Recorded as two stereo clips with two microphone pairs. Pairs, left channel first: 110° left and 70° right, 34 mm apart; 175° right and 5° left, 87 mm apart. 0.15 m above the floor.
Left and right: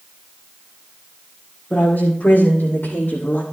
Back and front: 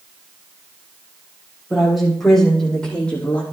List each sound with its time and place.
1.7 s a woman speaking: 95° left, 6.5 m; by 3.4 s 115° left, 5.5 m